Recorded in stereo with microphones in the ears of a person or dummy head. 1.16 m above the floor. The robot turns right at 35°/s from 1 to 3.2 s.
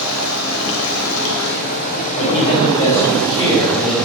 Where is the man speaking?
125° left, 4.5 m; by 4.0 s 160° left, 4.5 m.